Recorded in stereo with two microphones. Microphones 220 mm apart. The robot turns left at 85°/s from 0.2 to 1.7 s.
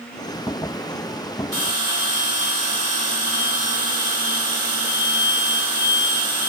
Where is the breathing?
No breathing in this recording.